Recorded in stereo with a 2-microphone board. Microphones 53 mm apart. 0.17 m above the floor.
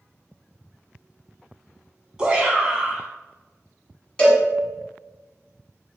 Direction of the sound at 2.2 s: 15° right (ahead or behind).